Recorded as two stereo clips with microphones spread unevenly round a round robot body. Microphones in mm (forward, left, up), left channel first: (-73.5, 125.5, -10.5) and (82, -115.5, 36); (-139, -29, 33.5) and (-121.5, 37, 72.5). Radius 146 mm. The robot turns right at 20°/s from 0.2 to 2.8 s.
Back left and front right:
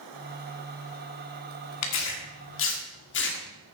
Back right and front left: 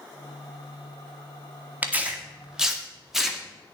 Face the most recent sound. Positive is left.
turn(degrees=170)